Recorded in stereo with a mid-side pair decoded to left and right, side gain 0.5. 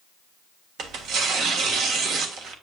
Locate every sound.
0.8 s tearing paper: 65° right, 1.5 m